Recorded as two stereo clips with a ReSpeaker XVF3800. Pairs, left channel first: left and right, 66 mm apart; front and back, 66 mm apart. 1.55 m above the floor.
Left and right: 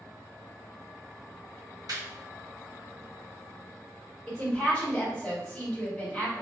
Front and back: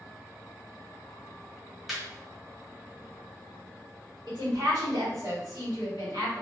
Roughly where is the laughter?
Right.